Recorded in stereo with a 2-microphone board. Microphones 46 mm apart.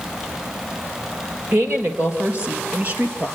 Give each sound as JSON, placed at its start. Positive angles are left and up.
{"t": 1.5, "sound": "a woman speaking", "side_deg": -55, "distance_m": 3.5}